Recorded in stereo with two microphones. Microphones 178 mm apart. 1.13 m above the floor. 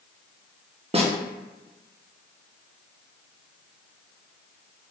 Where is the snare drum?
35° right (ahead or behind), 0.7 m.